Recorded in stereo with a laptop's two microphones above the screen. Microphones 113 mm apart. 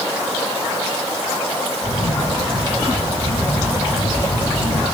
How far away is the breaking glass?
No breaking glass in this recording.